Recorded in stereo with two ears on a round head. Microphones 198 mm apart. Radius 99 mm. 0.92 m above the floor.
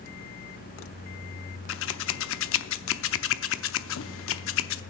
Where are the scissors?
65° left (ahead or behind), 0.7 m.